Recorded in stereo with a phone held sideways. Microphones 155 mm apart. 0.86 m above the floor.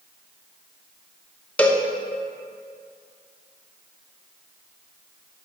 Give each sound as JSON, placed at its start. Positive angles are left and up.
{"t": 1.6, "sound": "a cowbell", "side_deg": 10, "distance_m": 0.5}